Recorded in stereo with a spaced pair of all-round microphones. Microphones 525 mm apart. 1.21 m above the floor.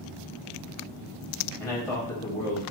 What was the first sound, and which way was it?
A man speaking, 85° left.